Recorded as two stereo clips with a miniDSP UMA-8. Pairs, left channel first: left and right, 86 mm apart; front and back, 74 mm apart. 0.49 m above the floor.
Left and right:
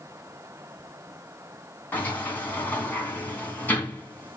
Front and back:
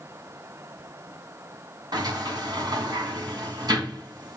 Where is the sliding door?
160° left, 3 m.